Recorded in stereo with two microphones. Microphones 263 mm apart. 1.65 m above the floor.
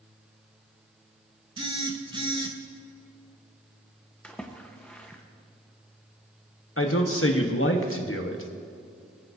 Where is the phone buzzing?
20° right (ahead or behind), 0.9 m.